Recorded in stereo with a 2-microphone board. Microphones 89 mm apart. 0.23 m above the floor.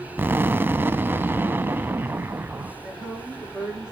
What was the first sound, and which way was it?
An explosion, 25° right (ahead or behind).